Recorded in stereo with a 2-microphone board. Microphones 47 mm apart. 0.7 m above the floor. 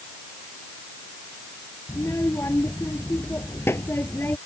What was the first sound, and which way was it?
A child speaking, 75° left (ahead or behind).